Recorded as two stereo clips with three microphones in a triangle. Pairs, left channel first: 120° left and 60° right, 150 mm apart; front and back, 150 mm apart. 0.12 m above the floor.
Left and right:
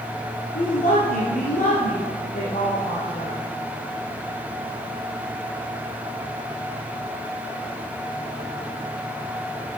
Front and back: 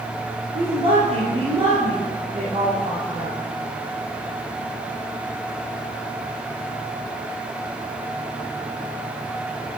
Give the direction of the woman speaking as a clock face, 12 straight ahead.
7 o'clock.